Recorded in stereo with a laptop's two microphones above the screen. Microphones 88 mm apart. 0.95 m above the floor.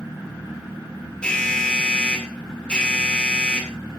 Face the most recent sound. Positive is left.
turn(degrees=10)  # may be behind; listen again after turning